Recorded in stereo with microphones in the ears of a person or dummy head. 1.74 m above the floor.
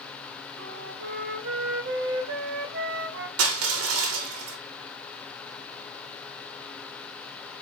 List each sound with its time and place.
0.6 s a flute: 50° right (ahead or behind), 0.8 m
3.4 s crushing: 85° right, 0.9 m